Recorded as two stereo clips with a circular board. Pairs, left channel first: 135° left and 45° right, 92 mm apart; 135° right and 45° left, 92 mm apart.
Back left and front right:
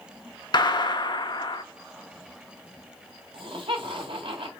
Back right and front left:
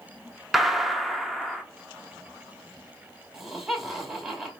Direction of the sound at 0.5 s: 130° left.